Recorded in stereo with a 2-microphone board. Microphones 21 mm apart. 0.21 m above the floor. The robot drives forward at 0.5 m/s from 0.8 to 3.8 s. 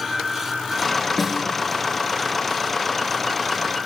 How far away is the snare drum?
About 1.4 m.